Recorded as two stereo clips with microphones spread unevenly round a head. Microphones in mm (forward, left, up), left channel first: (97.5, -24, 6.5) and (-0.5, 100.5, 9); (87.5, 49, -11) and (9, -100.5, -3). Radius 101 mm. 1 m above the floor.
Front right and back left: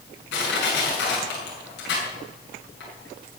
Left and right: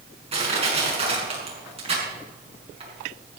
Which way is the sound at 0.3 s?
65° right.